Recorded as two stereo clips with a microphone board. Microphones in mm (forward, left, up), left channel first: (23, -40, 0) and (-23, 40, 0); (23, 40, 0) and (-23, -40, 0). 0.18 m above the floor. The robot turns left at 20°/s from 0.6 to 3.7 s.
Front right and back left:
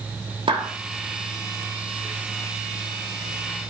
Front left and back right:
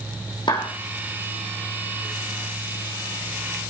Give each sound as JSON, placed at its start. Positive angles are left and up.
{"t": 0.5, "sound": "a clap", "azimuth_deg": 95, "distance_m": 6.5}